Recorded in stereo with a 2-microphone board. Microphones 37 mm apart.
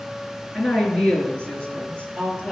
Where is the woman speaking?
25° left (ahead or behind), 3 m; by 2.5 s 20° left (ahead or behind), 4.5 m.